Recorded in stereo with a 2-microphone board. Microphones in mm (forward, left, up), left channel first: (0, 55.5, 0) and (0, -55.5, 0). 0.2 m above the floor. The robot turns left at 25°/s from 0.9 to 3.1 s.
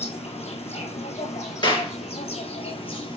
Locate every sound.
0.0 s an insect: 105° left, 1.1 m; by 3.2 s 50° left, 1.1 m
1.6 s a clap: 45° left (ahead or behind), 2 m; by 1.9 s 40° left (ahead or behind), 2 m